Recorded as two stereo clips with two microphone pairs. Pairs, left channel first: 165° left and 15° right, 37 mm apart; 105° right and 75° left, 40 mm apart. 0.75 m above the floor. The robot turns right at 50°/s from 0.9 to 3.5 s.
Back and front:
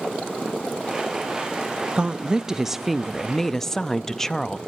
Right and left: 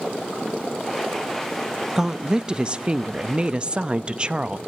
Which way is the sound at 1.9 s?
20° left.